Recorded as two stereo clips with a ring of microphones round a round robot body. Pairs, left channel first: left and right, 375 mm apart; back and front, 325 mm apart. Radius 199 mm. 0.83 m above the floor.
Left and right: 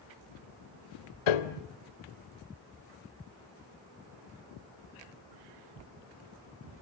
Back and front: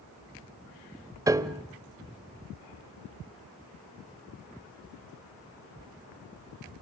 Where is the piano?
80° left, 1.4 m.